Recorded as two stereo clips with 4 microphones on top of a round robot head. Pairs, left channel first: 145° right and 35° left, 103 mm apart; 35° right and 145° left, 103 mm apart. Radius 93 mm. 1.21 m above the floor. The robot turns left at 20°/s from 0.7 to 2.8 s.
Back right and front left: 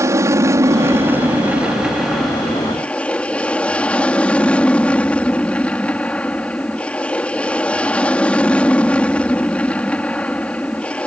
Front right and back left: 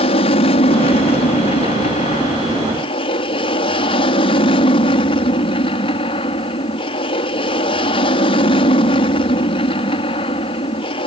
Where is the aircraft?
25° right; by 11.1 s 65° right.